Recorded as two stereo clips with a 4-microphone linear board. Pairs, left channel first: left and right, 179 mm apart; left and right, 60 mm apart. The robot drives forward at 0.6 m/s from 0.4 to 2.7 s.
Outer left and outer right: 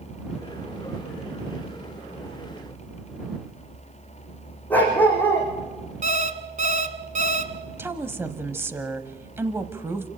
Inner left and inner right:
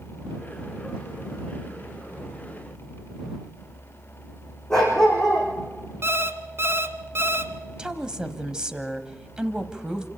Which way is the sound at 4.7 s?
10° left (ahead or behind).